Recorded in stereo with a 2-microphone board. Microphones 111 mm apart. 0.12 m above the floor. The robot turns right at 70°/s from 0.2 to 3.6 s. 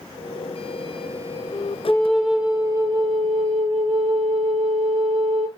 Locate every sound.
1.9 s a flute: 150° left, 2.5 m; by 5.5 s 85° right, 2.5 m